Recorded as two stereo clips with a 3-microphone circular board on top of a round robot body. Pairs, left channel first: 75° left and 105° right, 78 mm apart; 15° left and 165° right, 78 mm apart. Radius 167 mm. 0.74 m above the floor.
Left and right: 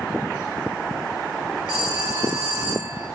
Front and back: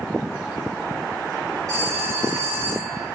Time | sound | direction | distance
1.7 | a phone ringing | 115° right | 6 m